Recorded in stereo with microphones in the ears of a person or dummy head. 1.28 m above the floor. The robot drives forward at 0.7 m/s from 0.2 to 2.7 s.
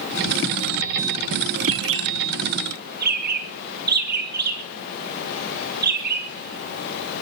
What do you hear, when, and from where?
1.6 s a bird: 70° right (ahead or behind), 1.3 m; by 7.2 s 50° right (ahead or behind), 1.6 m